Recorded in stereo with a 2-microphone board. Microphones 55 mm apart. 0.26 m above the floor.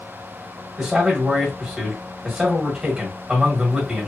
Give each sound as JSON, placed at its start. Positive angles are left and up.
{"t": 0.8, "sound": "a man speaking", "side_deg": -10, "distance_m": 1.6}